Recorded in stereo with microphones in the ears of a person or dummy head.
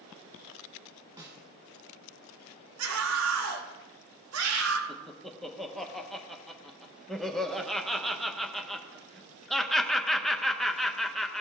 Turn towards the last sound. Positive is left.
turn(degrees=0)  # may be behind; listen again after turning